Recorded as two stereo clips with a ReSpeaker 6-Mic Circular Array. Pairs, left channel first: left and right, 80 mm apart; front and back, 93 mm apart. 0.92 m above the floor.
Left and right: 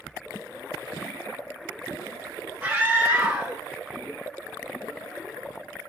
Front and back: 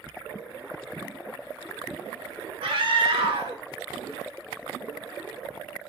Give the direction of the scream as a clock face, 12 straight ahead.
5 o'clock.